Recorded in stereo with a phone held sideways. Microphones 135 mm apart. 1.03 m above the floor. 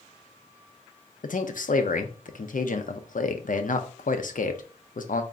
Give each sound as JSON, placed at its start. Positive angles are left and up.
{"t": 1.2, "sound": "a man speaking", "side_deg": 80, "distance_m": 0.5}